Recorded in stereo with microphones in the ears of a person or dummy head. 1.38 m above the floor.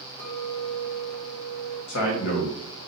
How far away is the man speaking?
About 1.4 m.